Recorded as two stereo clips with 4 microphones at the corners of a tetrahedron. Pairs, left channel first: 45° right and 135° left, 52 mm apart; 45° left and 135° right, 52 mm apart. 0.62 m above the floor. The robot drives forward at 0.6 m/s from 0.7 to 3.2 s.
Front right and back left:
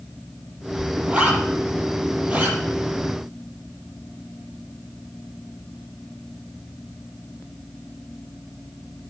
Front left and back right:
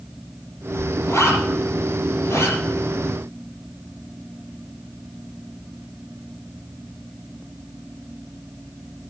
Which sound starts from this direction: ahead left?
A zipper, at 1.1 s.